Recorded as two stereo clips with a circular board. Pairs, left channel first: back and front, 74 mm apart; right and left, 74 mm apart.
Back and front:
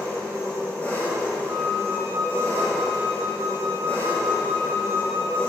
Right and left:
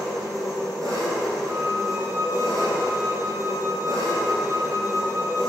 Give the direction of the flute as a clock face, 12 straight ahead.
11 o'clock.